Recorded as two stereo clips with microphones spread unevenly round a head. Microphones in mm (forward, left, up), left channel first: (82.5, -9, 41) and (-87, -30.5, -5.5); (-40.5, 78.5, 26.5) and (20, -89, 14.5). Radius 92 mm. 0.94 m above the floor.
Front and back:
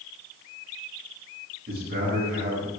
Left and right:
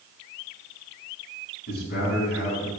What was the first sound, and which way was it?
A man speaking, 145° left.